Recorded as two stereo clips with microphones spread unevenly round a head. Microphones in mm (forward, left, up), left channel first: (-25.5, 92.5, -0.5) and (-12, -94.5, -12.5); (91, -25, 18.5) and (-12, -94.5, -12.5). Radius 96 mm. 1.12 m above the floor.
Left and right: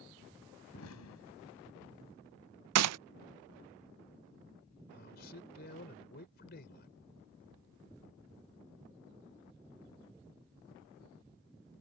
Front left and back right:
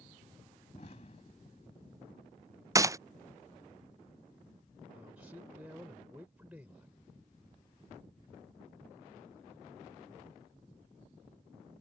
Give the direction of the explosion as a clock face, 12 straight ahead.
9 o'clock.